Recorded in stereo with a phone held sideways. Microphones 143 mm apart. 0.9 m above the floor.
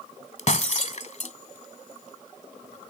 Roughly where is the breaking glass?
Left.